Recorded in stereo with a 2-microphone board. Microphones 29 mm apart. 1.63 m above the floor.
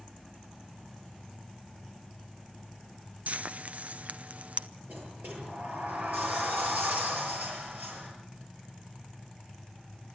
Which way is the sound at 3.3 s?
55° right (ahead or behind).